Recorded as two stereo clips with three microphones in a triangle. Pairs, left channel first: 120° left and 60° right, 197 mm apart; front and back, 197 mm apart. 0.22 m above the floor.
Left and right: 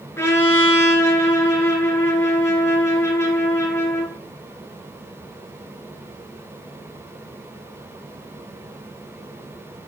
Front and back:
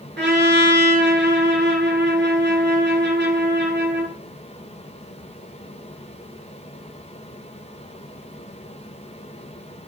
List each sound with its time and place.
0.2 s a trumpet: 165° right, 4 m